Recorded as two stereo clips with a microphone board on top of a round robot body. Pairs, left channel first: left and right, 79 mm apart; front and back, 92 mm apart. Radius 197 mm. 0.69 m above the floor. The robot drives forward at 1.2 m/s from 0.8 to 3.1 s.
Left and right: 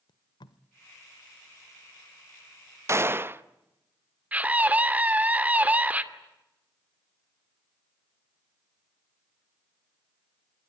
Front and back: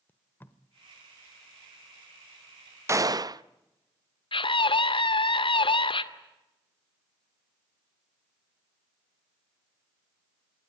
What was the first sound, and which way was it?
Tape being pulled, 70° left.